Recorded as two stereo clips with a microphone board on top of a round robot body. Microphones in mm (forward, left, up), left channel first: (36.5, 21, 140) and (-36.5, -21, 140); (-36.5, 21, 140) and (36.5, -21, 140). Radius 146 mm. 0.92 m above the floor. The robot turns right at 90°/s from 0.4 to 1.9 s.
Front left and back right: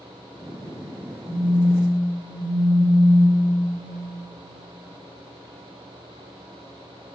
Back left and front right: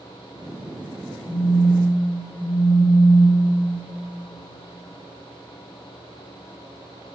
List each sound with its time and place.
1.3 s a phone buzzing: 60° left, 0.6 m; by 3.4 s 115° left, 0.6 m